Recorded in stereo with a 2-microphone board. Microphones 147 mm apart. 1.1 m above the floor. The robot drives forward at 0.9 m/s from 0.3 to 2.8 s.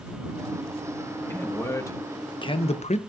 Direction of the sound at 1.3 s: 15° left (ahead or behind).